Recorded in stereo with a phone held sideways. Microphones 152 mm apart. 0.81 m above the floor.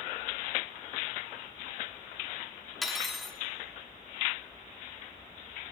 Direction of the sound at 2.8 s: Centre (ahead or behind).